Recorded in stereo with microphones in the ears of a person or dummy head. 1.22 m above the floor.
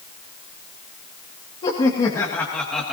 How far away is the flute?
No flute in this recording.